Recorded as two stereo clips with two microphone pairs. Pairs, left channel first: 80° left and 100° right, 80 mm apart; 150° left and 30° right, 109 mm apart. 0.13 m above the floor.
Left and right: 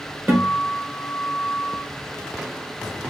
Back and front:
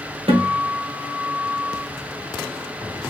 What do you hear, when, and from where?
0.3 s a guitar: 40° right, 2 m